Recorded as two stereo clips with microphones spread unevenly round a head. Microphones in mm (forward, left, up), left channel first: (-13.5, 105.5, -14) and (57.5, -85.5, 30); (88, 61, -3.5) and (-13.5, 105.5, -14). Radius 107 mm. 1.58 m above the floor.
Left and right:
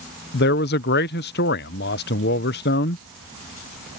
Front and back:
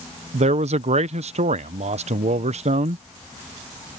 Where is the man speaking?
155° left.